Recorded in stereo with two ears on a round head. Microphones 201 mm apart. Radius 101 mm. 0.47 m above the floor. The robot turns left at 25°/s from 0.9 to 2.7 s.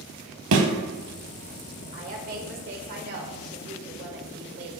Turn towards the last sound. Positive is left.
turn(degrees=-45)  # may be behind; listen again after turning